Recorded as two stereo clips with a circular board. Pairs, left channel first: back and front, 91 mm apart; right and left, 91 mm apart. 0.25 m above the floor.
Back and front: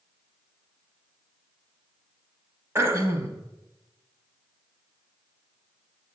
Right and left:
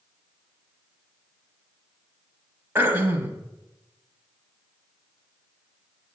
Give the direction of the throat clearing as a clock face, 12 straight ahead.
11 o'clock.